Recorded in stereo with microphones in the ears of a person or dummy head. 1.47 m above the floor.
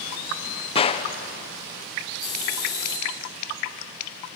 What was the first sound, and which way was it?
A gunshot, 30° left (ahead or behind).